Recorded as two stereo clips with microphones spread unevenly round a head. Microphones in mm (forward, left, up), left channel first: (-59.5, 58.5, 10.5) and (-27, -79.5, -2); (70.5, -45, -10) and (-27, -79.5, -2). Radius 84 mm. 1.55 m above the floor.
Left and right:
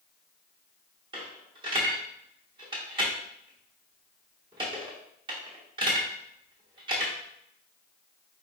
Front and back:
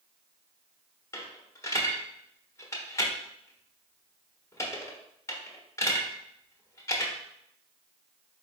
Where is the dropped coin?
30° right, 1.1 m.